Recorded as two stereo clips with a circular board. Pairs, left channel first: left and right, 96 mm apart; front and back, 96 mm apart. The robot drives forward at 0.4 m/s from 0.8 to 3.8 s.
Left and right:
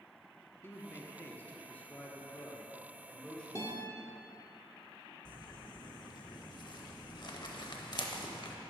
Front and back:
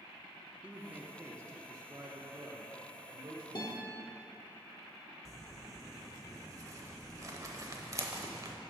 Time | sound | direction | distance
0.6 | a man speaking | 120° left | 0.7 m
3.5 | a guitar | 35° left | 1.1 m
5.2 | crumpling | 130° left | 0.6 m